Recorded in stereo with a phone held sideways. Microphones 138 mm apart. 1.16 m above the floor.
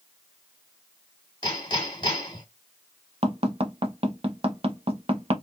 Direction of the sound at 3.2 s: 45° right (ahead or behind).